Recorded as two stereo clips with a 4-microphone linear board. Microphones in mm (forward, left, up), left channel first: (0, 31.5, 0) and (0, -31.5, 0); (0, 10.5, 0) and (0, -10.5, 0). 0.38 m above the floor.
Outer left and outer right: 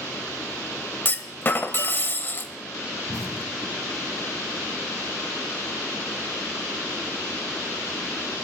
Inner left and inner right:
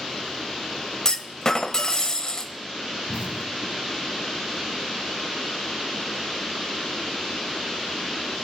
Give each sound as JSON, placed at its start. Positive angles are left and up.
{"t": 1.1, "sound": "a clunk", "side_deg": 35, "distance_m": 0.7}
{"t": 3.1, "sound": "an explosion", "side_deg": -65, "distance_m": 0.6}